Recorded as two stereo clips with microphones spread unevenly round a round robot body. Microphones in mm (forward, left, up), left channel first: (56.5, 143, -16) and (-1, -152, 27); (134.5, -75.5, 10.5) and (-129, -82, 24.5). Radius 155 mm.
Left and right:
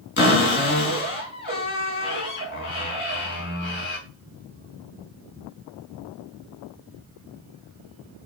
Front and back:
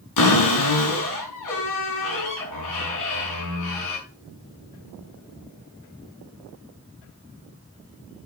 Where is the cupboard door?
25° left, 5 m.